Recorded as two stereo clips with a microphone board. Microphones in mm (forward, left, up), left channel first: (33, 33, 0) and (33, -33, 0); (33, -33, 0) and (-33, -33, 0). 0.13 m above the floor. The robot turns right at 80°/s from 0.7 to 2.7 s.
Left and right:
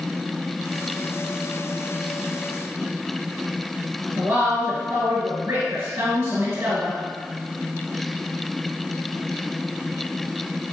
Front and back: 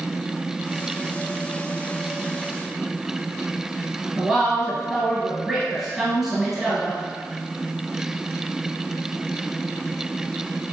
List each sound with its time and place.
4.2 s a woman speaking: 100° right, 1.3 m